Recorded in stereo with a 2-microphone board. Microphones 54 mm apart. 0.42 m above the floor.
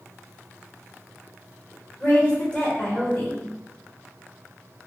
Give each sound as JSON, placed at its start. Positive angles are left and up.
{"t": 2.0, "sound": "a woman speaking", "side_deg": 25, "distance_m": 1.7}